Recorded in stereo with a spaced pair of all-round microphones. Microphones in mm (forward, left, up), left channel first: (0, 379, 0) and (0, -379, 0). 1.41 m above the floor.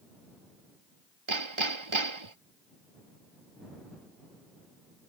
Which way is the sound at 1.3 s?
40° right (ahead or behind).